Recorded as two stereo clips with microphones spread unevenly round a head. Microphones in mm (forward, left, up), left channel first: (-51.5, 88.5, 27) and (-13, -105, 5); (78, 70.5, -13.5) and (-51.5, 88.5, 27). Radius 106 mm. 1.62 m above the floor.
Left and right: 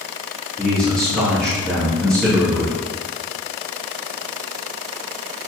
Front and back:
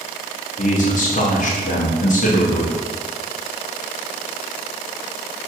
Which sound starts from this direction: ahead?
A man speaking, at 0.6 s.